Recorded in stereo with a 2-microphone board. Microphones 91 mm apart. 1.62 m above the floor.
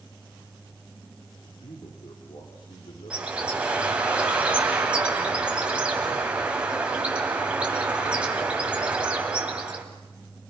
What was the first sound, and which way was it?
A man speaking, 70° left (ahead or behind).